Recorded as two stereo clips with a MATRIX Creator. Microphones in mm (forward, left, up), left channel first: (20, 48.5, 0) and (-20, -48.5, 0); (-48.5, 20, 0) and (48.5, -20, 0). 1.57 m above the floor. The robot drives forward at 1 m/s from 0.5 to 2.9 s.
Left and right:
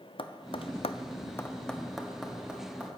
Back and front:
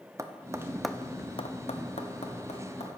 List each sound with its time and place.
0.2 s tapping: 35° left, 0.7 m; by 3.0 s 170° left, 1.9 m